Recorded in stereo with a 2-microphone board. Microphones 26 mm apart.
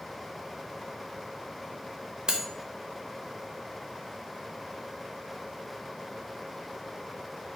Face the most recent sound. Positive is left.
turn(degrees=-30)  # may be behind; listen again after turning